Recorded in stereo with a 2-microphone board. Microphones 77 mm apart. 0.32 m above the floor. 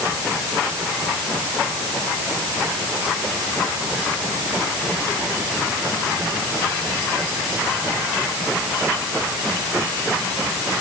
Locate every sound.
Only background noise.